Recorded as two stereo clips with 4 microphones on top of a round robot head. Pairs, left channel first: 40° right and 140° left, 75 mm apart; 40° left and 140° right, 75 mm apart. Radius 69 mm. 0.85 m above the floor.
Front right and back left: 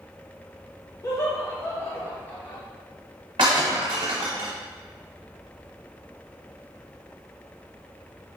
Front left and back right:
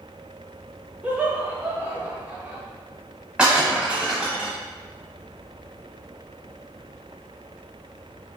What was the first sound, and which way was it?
Laughter, 75° right.